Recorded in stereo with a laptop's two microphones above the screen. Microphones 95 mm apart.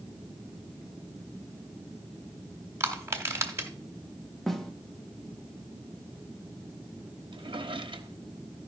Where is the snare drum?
Centre (ahead or behind), 1.2 m.